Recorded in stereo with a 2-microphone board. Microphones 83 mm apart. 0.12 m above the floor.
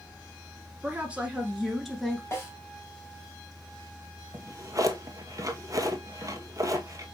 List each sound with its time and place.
0.8 s a woman speaking: 20° right (ahead or behind), 1.6 m; by 2.2 s 5° left (ahead or behind), 1.7 m
2.3 s a snare drum: 30° left (ahead or behind), 3.5 m
4.3 s a drawer: 45° right (ahead or behind), 0.8 m